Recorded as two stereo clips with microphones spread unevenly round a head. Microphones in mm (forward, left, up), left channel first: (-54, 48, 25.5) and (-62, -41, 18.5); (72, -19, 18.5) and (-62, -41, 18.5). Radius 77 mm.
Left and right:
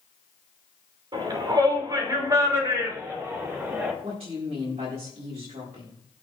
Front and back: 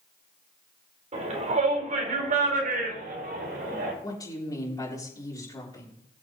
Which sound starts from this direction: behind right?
A shout, at 1.1 s.